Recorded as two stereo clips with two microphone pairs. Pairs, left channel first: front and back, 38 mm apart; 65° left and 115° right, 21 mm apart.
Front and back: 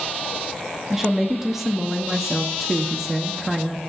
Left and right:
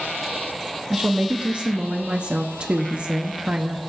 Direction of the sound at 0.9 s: 100° right.